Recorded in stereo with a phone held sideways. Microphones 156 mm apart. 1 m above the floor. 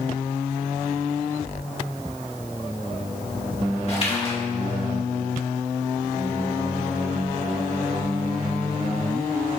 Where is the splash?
40° left (ahead or behind), 2 m.